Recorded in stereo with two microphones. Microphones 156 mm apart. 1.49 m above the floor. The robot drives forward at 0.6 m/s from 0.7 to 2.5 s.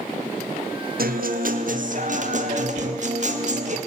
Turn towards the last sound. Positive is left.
turn(degrees=35)  # may be behind; listen again after turning